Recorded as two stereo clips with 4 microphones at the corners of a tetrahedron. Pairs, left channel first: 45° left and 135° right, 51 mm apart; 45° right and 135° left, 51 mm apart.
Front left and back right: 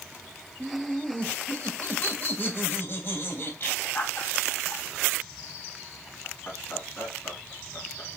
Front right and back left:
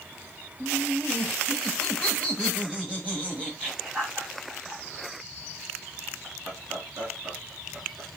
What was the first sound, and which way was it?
Laughter, 20° right.